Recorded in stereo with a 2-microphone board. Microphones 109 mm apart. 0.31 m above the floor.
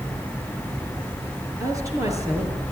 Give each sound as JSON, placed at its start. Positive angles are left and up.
{"t": 1.6, "sound": "a woman speaking", "side_deg": -30, "distance_m": 5.5}